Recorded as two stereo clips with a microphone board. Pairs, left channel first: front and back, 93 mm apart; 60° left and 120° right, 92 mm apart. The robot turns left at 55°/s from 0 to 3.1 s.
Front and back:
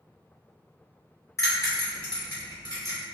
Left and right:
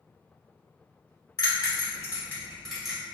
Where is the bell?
45° left, 1.4 m; by 3.0 s 40° right, 1.4 m.